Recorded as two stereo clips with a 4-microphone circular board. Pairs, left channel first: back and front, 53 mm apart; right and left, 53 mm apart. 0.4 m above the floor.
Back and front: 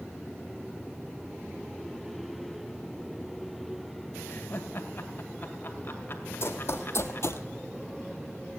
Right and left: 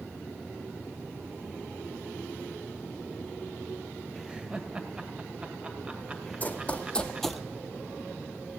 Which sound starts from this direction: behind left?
Laughter, at 4.3 s.